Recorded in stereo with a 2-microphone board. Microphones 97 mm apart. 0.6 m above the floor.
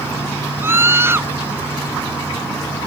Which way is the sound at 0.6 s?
25° right (ahead or behind).